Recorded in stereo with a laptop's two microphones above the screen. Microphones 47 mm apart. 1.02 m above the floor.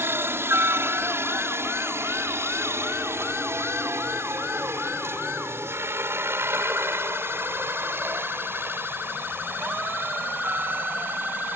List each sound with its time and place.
0.0 s a helicopter: 55° right (ahead or behind); by 11.6 s 45° right (ahead or behind)